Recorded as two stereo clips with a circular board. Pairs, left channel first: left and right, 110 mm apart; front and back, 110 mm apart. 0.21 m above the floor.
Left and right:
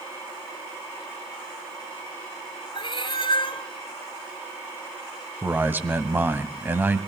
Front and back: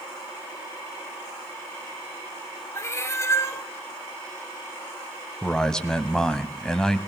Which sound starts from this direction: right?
A man speaking, at 5.4 s.